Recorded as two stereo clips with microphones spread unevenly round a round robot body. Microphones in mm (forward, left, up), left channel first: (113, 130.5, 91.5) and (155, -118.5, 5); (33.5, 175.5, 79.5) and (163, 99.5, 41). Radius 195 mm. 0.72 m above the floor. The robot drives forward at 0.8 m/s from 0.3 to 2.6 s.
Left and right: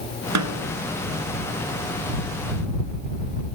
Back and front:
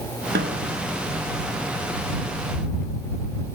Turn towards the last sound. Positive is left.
turn(degrees=-115)